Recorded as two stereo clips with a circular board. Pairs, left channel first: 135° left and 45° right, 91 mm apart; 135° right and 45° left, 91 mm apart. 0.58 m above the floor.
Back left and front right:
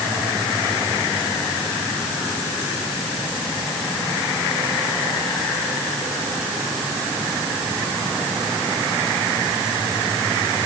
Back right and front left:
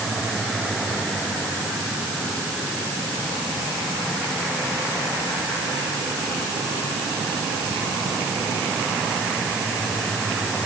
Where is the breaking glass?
No breaking glass in this recording.